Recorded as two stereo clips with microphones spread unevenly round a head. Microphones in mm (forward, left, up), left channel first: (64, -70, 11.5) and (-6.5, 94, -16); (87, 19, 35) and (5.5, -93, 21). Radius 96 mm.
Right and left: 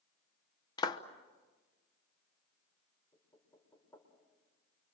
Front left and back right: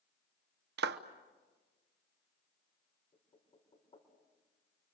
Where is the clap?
135° right, 0.9 m.